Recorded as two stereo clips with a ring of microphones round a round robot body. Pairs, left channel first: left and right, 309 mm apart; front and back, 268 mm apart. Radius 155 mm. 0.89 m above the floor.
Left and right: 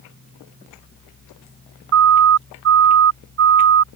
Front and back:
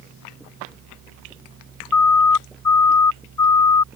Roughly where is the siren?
Ahead right.